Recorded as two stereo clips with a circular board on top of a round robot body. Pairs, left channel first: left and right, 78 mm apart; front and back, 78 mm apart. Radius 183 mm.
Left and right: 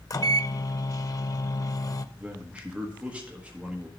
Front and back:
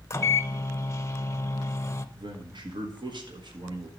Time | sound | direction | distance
0.1 | a microwave | 55° left | 0.7 m
2.1 | a man speaking | 165° right | 1.6 m